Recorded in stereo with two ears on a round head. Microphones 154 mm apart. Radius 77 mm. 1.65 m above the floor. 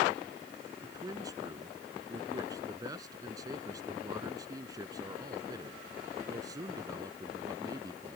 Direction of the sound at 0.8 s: 20° right (ahead or behind).